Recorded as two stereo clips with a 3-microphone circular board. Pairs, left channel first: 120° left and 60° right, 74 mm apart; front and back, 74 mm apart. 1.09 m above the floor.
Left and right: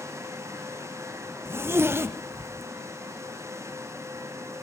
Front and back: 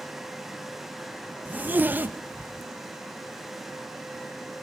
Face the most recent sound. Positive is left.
turn(degrees=-115)